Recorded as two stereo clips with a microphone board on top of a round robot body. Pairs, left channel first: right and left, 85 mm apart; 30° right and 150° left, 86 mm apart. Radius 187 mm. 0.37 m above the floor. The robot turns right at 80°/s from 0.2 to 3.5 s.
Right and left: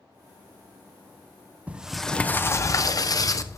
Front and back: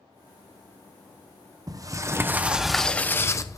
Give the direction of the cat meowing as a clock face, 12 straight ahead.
No cat meowing in this recording.